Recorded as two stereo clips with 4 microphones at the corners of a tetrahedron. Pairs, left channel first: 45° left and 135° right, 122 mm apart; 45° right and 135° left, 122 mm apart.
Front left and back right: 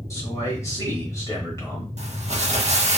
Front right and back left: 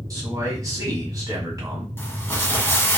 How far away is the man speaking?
About 1.3 m.